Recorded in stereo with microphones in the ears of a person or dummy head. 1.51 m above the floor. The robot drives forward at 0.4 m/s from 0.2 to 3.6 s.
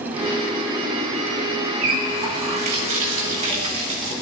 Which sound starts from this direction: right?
A running tap, at 1.8 s.